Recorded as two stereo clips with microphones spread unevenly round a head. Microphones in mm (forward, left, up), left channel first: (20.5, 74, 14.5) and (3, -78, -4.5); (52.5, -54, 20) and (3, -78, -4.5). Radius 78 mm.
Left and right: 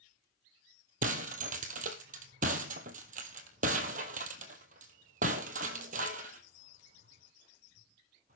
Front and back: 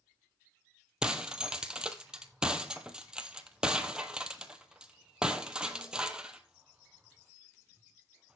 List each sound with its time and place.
1.0 s breaking glass: 60° right, 1.7 m